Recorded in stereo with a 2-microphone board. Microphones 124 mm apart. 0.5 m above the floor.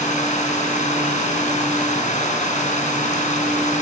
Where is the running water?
80° left, 3.5 m.